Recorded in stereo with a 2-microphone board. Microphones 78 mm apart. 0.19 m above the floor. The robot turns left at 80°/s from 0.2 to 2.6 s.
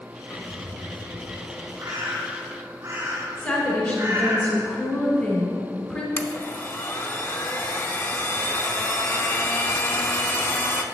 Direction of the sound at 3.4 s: 25° left (ahead or behind).